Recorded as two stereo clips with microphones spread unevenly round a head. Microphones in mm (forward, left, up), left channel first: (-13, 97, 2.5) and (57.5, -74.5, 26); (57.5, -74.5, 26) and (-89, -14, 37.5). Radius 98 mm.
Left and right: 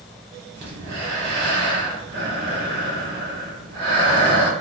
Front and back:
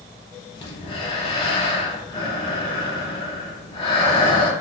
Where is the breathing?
65° right, 1.5 m.